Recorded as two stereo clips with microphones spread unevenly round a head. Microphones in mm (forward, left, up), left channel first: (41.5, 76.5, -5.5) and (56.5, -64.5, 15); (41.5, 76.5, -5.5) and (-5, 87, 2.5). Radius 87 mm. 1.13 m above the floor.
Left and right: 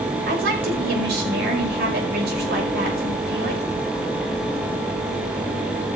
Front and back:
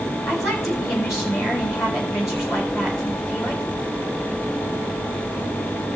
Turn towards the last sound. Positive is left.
turn(degrees=-85)